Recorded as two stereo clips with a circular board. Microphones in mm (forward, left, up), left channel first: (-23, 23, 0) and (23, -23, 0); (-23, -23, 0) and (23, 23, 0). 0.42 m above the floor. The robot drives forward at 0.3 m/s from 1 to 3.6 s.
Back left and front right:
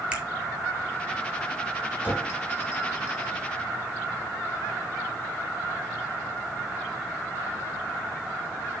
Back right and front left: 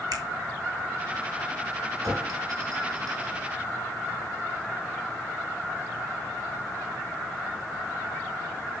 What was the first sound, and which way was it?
A finger snap, 30° left.